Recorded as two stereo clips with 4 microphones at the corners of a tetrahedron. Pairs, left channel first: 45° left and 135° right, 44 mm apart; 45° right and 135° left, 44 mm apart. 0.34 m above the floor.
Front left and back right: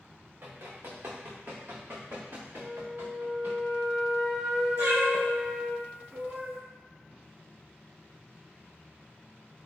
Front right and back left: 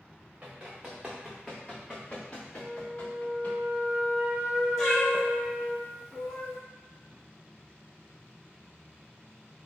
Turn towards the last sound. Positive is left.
turn(degrees=-125)